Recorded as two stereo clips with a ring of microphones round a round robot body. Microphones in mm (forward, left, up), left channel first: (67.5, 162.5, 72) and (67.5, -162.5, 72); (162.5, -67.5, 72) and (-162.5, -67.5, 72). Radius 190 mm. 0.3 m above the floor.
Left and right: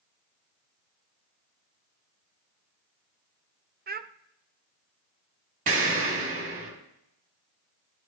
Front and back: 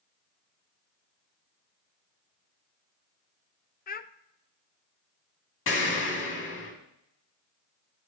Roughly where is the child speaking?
Ahead right.